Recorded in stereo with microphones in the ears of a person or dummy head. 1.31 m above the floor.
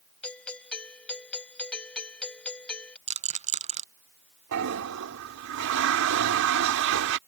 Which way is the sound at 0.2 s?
5° left (ahead or behind).